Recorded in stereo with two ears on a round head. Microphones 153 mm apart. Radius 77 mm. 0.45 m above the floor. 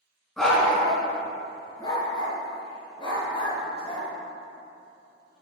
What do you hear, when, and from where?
0.4 s a dog barking: centre (ahead or behind), 1.5 m; by 4.1 s 35° left (ahead or behind), 3 m